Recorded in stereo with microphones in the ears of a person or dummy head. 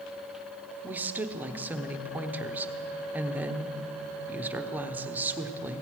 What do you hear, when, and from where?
0.8 s a woman speaking: 10° right (ahead or behind), 0.8 m